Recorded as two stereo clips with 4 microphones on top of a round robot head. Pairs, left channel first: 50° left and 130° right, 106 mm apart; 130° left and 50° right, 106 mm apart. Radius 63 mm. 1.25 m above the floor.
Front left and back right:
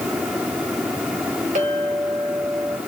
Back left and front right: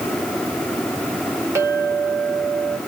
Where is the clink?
115° right, 3 m.